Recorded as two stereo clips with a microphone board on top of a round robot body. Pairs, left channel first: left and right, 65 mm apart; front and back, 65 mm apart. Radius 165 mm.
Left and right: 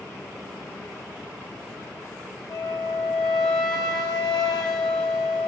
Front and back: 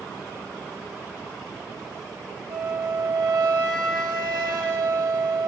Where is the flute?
165° left, 1.7 m.